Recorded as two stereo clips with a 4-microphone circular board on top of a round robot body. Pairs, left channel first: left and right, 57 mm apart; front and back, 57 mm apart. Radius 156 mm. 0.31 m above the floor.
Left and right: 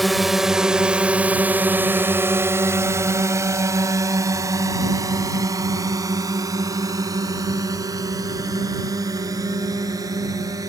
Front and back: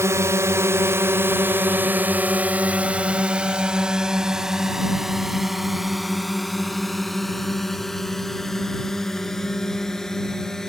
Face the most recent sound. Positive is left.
turn(degrees=-80)